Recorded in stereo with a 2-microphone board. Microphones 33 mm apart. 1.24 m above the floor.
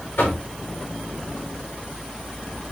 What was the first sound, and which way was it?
Knocking, 85° left.